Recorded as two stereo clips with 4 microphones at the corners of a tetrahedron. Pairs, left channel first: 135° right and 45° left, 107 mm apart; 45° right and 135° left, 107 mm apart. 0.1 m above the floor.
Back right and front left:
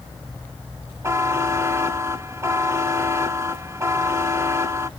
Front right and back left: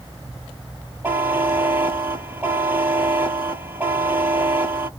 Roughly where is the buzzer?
Left.